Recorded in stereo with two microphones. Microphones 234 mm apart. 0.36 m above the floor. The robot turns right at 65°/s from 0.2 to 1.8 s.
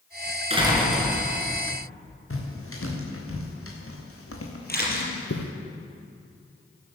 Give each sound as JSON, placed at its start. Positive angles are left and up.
{"t": 0.5, "sound": "a door slam", "azimuth_deg": -25, "distance_m": 4.0}
{"t": 2.3, "sound": "footsteps", "side_deg": 65, "distance_m": 4.5}
{"t": 4.7, "sound": "a camera shutter", "side_deg": 40, "distance_m": 4.5}